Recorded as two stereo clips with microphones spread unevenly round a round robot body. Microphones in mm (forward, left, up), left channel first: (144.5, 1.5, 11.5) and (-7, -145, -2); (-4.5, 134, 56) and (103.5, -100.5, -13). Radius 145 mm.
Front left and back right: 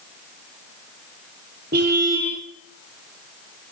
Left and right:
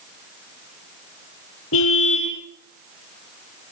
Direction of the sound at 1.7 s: 165° left.